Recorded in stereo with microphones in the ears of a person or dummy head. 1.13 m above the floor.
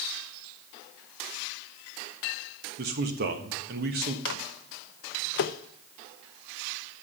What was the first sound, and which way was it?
A man speaking, 60° right (ahead or behind).